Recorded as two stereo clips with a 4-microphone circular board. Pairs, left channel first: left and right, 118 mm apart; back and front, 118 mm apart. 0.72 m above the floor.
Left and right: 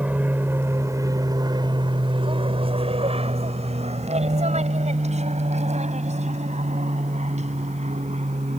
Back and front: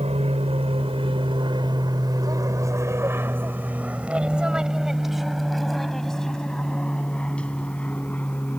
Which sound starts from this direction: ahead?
An aircraft, at 0.0 s.